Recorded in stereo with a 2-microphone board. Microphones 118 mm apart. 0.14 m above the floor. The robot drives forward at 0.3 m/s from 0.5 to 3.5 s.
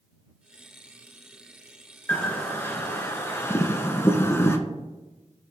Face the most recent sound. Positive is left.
turn(degrees=20)  # may be behind; listen again after turning